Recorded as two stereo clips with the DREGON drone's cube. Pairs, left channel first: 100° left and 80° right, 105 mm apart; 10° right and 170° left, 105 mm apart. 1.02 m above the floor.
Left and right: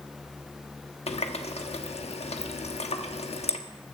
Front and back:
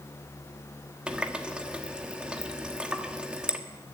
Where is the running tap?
90° left, 1.2 m.